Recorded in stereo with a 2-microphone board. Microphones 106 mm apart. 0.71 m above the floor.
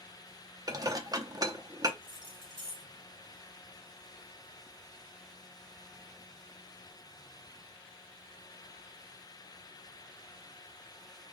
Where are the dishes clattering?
35° right (ahead or behind), 0.6 m.